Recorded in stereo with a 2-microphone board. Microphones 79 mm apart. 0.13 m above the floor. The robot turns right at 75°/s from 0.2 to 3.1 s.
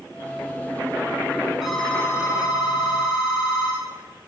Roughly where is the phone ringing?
Ahead.